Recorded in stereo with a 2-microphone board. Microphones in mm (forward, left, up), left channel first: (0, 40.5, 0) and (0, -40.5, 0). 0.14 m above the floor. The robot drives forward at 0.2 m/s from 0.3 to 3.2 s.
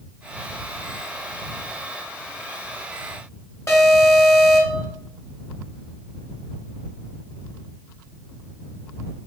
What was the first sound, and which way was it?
An alarm, 35° left (ahead or behind).